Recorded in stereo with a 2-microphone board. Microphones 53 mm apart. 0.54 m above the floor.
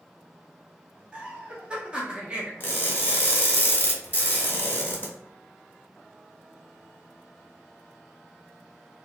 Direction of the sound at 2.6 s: 30° left (ahead or behind).